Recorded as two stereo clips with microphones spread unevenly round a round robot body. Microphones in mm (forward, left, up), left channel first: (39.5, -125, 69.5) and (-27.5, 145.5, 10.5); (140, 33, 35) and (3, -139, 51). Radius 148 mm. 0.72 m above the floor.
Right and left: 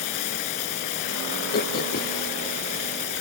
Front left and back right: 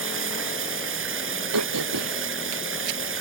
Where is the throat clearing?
135° right.